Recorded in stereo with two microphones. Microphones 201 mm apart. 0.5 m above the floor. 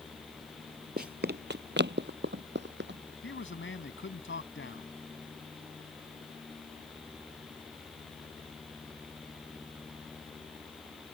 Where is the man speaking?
70° left (ahead or behind).